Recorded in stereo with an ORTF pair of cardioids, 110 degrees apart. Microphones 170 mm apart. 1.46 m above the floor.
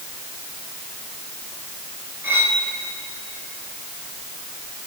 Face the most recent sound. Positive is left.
turn(degrees=-15)